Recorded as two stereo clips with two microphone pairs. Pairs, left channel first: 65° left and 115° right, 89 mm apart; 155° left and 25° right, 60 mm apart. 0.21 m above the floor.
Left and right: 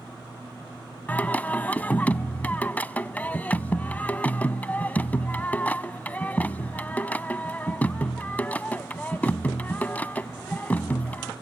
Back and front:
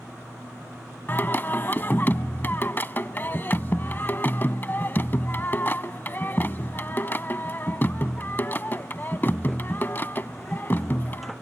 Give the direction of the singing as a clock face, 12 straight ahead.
8 o'clock.